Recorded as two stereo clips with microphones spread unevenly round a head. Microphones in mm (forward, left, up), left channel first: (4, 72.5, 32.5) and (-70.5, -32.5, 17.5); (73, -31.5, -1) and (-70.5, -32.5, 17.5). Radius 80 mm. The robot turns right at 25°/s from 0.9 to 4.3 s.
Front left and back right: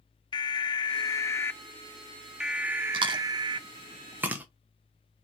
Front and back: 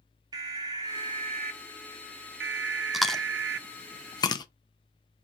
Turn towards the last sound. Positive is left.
turn(degrees=-55)